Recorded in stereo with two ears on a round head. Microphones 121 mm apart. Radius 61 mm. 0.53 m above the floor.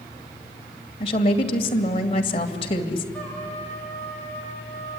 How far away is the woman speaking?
About 2.5 m.